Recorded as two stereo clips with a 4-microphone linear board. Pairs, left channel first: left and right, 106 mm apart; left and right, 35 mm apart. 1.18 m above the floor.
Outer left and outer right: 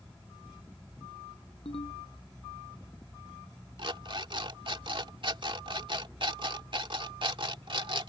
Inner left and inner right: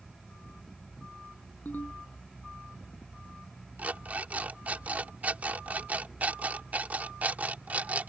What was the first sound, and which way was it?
A ringtone, 65° left (ahead or behind).